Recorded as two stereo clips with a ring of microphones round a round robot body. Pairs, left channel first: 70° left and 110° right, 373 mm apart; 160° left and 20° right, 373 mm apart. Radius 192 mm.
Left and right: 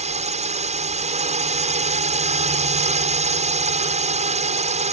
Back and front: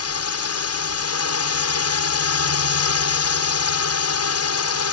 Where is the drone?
175° right.